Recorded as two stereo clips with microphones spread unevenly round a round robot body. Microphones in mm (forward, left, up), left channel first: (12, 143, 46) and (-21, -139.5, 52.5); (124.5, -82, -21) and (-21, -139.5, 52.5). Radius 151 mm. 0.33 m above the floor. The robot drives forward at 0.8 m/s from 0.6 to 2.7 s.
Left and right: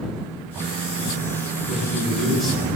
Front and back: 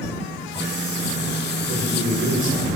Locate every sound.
1.7 s a man speaking: 170° left, 3.5 m; by 2.7 s 175° left, 4.5 m